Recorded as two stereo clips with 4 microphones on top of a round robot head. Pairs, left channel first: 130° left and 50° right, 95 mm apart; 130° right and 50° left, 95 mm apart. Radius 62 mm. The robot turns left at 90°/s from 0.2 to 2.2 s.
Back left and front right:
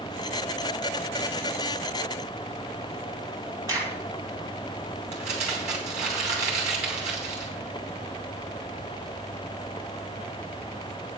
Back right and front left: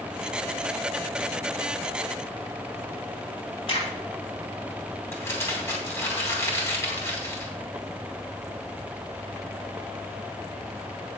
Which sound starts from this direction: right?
A crack, at 3.7 s.